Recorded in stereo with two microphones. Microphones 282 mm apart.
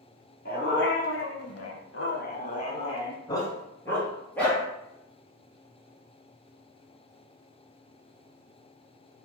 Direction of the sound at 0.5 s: 35° left (ahead or behind).